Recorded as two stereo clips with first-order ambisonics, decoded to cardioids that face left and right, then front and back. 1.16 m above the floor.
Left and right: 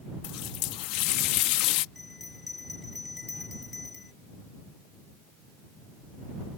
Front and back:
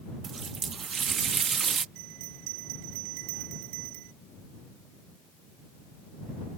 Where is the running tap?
115° left.